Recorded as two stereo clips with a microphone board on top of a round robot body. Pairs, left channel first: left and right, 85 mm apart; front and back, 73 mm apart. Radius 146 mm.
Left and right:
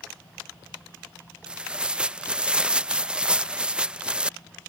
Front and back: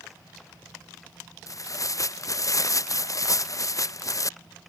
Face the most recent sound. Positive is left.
turn(degrees=-15)